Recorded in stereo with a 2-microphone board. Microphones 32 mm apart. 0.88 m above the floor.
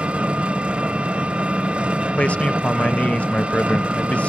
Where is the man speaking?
45° left (ahead or behind), 0.6 m.